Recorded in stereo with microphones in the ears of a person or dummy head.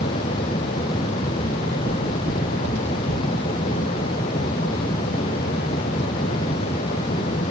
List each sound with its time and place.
1.4 s footsteps: 55° right (ahead or behind), 4.5 m; by 3.3 s 60° right (ahead or behind), 5.5 m